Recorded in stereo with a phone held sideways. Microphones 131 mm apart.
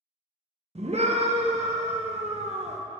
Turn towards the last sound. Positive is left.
turn(degrees=-55)  # may be behind; listen again after turning